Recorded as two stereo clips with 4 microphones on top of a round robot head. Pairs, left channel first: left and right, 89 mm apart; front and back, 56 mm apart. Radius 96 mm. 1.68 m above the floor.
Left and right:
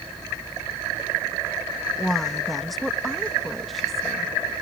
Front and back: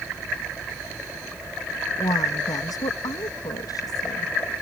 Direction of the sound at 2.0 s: Straight ahead.